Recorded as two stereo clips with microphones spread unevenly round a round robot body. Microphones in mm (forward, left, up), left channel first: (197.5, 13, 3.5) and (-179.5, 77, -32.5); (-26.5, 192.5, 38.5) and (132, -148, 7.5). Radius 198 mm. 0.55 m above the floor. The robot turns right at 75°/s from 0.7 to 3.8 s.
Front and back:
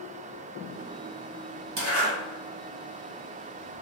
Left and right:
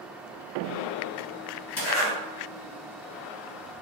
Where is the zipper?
160° left, 1.9 m; by 2.1 s 175° right, 1.9 m.